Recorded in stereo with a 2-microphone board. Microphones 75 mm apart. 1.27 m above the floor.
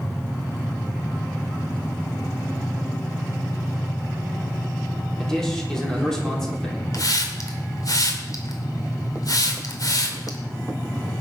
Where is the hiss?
55° left (ahead or behind), 2.5 m.